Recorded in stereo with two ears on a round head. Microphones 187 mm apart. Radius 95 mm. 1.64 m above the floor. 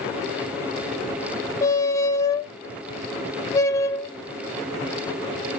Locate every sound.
1.6 s a squeak: 15° left (ahead or behind), 0.6 m